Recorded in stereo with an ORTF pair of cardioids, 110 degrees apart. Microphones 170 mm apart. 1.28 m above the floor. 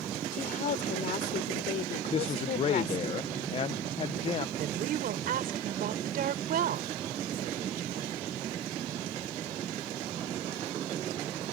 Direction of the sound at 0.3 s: 50° left.